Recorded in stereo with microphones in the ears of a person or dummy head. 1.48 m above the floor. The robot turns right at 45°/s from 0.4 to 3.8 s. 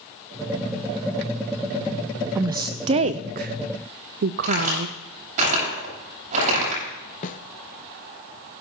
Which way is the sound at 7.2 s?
40° left (ahead or behind).